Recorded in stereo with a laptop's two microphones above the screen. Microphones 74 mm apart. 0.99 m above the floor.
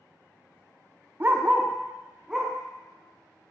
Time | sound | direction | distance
1.2 | a dog barking | 30° right (ahead or behind) | 0.5 m